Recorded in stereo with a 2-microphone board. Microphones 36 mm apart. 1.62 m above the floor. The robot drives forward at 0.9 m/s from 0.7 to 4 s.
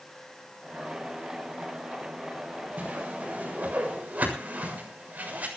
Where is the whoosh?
40° right (ahead or behind), 7.5 m; by 5.5 s 45° right (ahead or behind), 7 m.